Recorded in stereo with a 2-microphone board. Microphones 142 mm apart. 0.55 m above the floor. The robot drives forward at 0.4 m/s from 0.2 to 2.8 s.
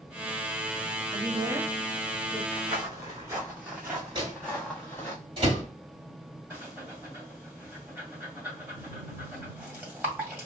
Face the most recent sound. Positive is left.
turn(degrees=-10)  # may be behind; listen again after turning